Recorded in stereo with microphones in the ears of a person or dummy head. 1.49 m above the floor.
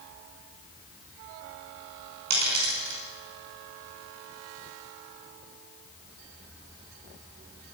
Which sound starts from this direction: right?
A dropped coin, at 2.3 s.